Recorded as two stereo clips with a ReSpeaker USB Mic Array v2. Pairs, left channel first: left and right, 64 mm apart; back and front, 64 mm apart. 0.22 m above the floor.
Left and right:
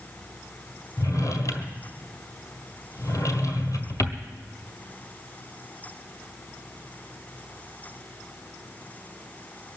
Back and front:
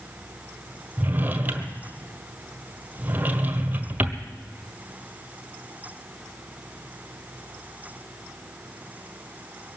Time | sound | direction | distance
1.0 | a drawer | 65° left | 1.6 m